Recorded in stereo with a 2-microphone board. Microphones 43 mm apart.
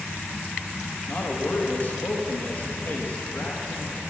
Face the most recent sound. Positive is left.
turn(degrees=45)  # may be behind; listen again after turning